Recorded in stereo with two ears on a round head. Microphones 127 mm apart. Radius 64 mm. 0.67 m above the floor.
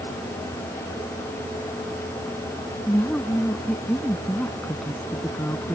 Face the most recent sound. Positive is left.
turn(degrees=10)  # may be behind; listen again after turning